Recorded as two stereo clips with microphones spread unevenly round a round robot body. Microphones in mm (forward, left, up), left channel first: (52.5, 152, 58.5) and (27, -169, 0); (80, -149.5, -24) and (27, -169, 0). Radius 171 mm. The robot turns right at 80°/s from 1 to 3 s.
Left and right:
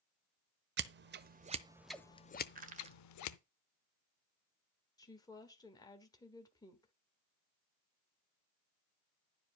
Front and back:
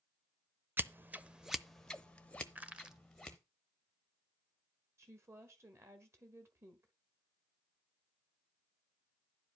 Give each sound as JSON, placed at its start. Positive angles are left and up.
{"t": 0.8, "sound": "scissors", "azimuth_deg": -90, "distance_m": 0.8}
{"t": 2.5, "sound": "crushing", "azimuth_deg": -85, "distance_m": 1.4}
{"t": 5.0, "sound": "a woman speaking", "azimuth_deg": 175, "distance_m": 1.5}